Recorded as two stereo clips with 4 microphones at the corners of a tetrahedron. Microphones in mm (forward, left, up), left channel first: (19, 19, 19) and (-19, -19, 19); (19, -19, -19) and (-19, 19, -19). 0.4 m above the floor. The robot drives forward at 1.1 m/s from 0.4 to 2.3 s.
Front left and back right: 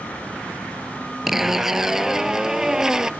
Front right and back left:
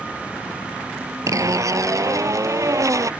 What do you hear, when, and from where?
1.3 s a zipper: 140° left; by 3.1 s 145° left